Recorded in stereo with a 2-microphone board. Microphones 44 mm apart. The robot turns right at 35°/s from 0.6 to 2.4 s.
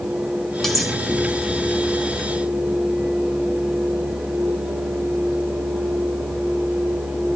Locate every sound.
0.6 s cutlery clinking: 5° left (ahead or behind), 4 m; by 0.9 s 5° right (ahead or behind), 4 m